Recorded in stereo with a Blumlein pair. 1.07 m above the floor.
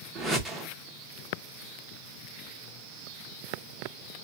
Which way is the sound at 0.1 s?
10° right.